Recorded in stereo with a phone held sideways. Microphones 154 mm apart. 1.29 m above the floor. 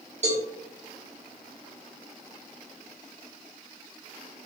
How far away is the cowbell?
About 1.2 m.